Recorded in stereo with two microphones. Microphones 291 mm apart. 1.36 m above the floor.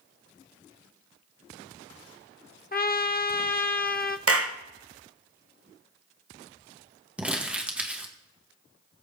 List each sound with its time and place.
2.7 s a trumpet: 35° left (ahead or behind), 0.6 m
4.3 s a clap: 55° right (ahead or behind), 0.9 m
7.2 s crumpling: 5° right (ahead or behind), 1.8 m